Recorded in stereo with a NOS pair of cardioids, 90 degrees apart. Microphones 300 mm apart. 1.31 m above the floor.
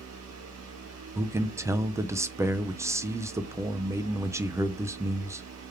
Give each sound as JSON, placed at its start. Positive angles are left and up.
{"t": 0.0, "sound": "a fan", "azimuth_deg": -60, "distance_m": 1.3}
{"t": 1.1, "sound": "a man speaking", "azimuth_deg": -10, "distance_m": 0.6}